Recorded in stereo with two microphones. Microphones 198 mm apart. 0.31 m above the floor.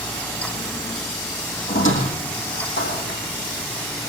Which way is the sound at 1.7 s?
85° left.